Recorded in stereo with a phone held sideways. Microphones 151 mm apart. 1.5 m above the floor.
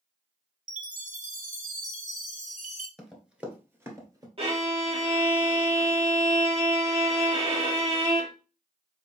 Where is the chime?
55° right (ahead or behind), 0.8 m.